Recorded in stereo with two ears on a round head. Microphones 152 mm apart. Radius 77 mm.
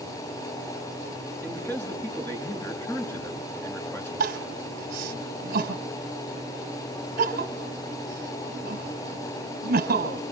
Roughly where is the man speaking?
Centre.